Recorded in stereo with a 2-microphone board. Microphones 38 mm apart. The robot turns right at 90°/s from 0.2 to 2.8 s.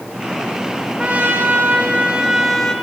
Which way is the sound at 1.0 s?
140° right.